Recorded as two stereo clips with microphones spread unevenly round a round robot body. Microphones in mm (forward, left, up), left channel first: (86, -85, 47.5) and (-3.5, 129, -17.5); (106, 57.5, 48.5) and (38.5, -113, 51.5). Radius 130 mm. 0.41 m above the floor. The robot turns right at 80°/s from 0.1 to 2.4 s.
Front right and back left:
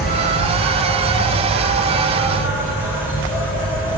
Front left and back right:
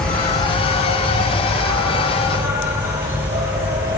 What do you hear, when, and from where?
0.0 s an insect: 15° right, 1.9 m; by 4.0 s 170° left, 1.9 m